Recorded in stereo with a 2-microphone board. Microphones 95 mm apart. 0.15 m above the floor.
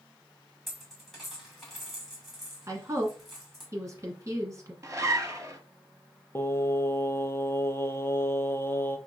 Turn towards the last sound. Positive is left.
turn(degrees=25)  # may be behind; listen again after turning